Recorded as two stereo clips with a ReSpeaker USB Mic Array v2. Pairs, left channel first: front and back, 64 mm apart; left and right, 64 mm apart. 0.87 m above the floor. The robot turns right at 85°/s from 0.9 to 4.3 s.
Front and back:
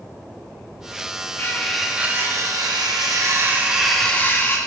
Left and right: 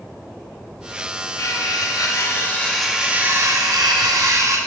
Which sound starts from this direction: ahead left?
Cutlery clinking, at 1.4 s.